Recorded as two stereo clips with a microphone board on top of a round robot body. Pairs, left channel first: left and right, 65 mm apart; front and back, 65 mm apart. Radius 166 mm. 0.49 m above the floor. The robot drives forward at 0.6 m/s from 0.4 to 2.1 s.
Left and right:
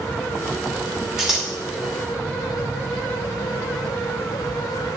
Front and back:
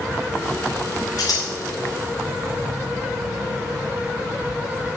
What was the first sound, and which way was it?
Scissors, 10° right.